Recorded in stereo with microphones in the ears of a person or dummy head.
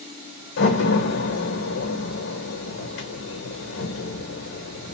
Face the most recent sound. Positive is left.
turn(degrees=65)  # may be behind; listen again after turning